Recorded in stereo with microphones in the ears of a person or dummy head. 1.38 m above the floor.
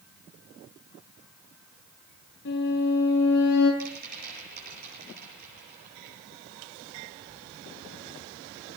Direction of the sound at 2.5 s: 70° left (ahead or behind).